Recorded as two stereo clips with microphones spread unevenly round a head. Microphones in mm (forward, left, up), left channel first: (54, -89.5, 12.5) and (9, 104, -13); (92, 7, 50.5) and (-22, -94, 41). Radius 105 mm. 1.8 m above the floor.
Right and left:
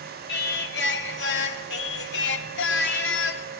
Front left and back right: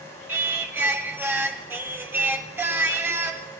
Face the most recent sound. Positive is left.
turn(degrees=-60)